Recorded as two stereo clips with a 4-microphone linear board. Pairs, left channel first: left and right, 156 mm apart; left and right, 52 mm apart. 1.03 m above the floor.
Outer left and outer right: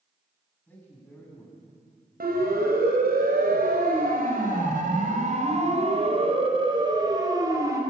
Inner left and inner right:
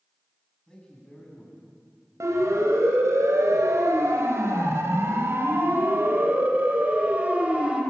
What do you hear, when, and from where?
0.7 s a man speaking: 15° left (ahead or behind), 8.5 m
2.2 s a siren: 85° right, 4.5 m; by 7.8 s 20° right (ahead or behind), 4.5 m